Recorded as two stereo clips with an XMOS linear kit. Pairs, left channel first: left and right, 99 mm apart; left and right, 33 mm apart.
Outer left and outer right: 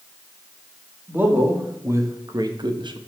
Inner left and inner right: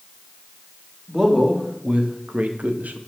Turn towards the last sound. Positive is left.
turn(degrees=-60)  # may be behind; listen again after turning